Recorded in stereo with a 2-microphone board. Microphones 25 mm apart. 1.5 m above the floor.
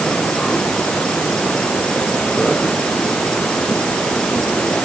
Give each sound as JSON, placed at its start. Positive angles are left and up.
{"t": 0.0, "sound": "an insect", "side_deg": 35}